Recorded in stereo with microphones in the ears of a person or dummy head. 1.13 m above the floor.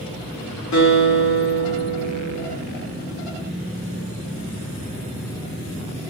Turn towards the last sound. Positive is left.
turn(degrees=70)  # may be behind; listen again after turning